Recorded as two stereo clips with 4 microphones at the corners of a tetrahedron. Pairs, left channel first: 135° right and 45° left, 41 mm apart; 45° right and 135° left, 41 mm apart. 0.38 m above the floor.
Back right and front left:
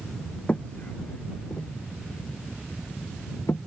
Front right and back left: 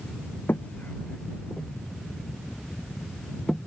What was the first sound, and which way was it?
Footsteps, 75° right.